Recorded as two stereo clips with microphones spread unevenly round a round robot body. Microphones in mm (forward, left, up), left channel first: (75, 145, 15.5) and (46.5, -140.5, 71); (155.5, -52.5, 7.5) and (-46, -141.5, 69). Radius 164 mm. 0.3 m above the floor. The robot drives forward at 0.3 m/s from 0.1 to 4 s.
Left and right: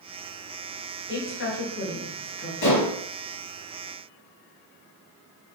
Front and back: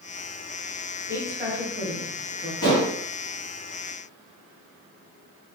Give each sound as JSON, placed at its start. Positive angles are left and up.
{"t": 1.1, "sound": "a woman speaking", "azimuth_deg": 115, "distance_m": 2.5}
{"t": 2.6, "sound": "dishes clattering", "azimuth_deg": 95, "distance_m": 4.0}